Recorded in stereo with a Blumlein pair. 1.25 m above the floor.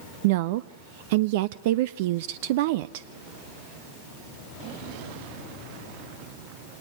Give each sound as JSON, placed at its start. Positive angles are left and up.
{"t": 0.2, "sound": "a woman speaking", "azimuth_deg": -50, "distance_m": 0.5}